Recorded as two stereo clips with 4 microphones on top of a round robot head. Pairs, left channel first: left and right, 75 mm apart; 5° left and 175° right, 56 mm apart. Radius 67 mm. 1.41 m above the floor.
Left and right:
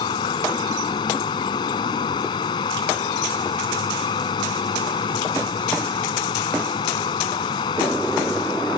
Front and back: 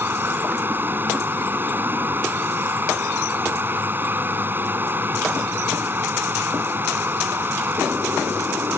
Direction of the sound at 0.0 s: 130° left.